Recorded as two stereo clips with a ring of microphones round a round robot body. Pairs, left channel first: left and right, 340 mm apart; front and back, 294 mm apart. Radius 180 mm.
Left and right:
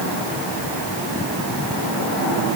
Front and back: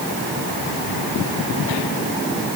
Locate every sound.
Only background noise.